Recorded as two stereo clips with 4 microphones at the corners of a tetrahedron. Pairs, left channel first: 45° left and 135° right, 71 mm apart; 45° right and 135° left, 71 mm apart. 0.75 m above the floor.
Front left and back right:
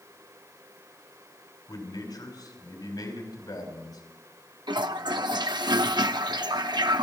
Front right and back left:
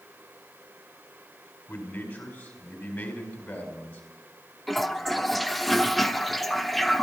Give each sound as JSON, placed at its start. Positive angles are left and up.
{"t": 1.7, "sound": "a man speaking", "azimuth_deg": 25, "distance_m": 4.5}
{"t": 4.7, "sound": "a toilet flushing", "azimuth_deg": -135, "distance_m": 0.8}